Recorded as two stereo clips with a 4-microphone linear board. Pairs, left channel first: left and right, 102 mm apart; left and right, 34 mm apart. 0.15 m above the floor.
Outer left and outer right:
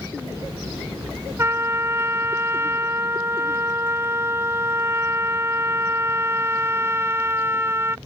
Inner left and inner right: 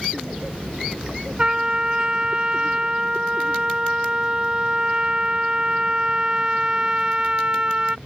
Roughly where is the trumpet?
Right.